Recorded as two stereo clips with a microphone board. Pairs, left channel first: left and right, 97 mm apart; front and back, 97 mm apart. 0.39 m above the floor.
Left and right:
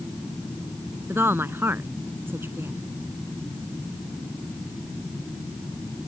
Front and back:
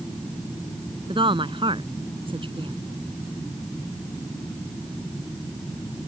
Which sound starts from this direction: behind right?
A woman speaking, at 1.1 s.